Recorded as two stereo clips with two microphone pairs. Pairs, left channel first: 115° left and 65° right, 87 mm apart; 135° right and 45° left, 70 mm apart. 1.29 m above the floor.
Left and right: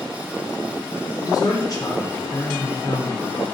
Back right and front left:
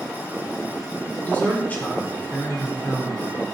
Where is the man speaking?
160° left, 3 m.